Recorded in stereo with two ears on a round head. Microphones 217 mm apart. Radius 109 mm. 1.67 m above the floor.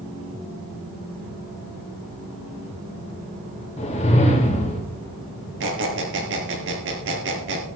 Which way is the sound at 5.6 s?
55° right (ahead or behind).